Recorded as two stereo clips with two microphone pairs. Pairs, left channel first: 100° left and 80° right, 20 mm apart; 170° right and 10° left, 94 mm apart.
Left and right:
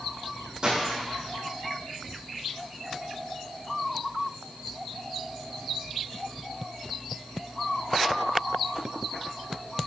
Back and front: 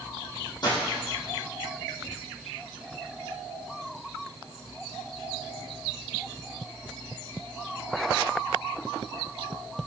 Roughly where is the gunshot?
Behind right.